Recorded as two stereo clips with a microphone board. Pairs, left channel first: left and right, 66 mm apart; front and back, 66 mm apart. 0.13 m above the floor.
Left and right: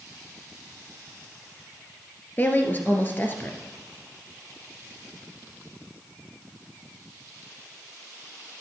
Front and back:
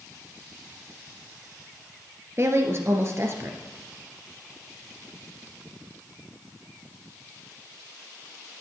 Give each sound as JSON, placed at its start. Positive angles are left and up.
{"t": 2.4, "sound": "a woman speaking", "azimuth_deg": 145, "distance_m": 1.8}